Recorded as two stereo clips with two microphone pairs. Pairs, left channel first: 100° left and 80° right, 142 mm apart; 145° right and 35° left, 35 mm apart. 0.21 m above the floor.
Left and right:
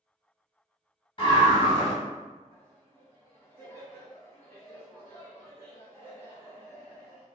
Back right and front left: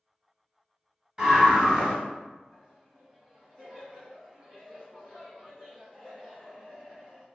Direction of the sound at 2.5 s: 65° left.